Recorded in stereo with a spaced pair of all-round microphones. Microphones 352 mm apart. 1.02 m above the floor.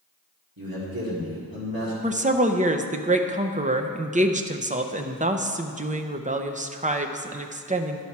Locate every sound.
0.6 s a man speaking: 65° right (ahead or behind), 2 m
2.0 s a woman speaking: 20° right (ahead or behind), 0.5 m